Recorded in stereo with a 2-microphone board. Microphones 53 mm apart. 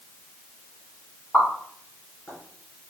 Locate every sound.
1.3 s a pop: 35° left (ahead or behind), 2.5 m